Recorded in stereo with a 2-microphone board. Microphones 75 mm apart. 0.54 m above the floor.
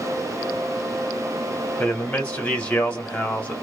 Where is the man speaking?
20° left (ahead or behind), 1.4 m.